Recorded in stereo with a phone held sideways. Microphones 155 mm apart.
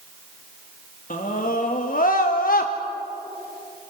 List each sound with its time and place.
1.1 s a scream: 60° left (ahead or behind), 2 m; by 2.7 s 70° left (ahead or behind), 1.1 m